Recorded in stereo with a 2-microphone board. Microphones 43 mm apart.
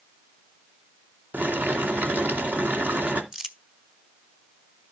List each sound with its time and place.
1.3 s boiling: 50° right (ahead or behind), 2.0 m
3.3 s crumpling: 10° right (ahead or behind), 1.2 m